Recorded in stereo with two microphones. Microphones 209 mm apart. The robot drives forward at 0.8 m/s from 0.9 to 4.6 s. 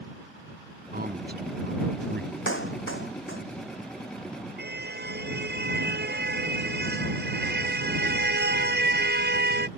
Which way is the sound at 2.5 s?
75° left (ahead or behind).